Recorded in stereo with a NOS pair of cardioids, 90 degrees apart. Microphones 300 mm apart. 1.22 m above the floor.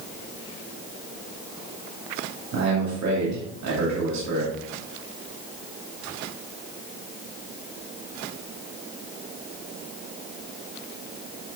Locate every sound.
2.5 s a man speaking: 60° right, 2.5 m